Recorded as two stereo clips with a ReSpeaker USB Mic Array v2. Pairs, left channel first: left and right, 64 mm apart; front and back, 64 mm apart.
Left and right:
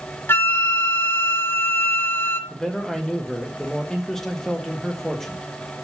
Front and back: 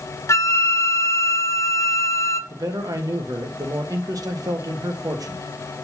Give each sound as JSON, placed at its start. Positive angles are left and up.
{"t": 0.3, "sound": "a flute", "azimuth_deg": 35, "distance_m": 0.6}
{"t": 2.5, "sound": "a man speaking", "azimuth_deg": 170, "distance_m": 1.3}